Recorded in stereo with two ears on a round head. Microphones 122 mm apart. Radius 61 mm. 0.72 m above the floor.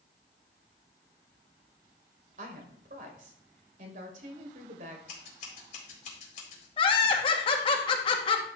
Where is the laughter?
40° left (ahead or behind), 1.3 m.